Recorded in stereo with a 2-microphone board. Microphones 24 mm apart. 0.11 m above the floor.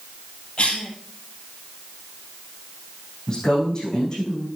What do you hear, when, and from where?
0.6 s a cough: 50° left (ahead or behind), 3.5 m
3.3 s a woman speaking: 30° left (ahead or behind), 5.5 m